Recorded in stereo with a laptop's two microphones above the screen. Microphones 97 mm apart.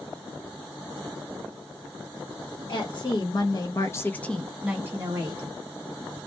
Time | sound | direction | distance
2.7 | a woman speaking | 55° left (ahead or behind) | 1.1 m